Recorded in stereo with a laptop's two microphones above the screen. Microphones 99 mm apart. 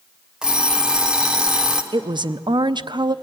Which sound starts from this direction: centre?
An alarm clock, at 0.4 s.